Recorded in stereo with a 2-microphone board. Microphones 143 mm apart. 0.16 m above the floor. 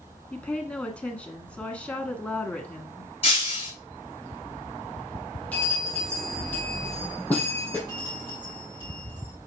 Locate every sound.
0.3 s a woman speaking: 10° left (ahead or behind), 1.4 m
3.2 s breaking glass: 45° left (ahead or behind), 4.5 m
5.5 s a bell: 10° left (ahead or behind), 3 m
7.9 s a bell: 35° right (ahead or behind), 3.5 m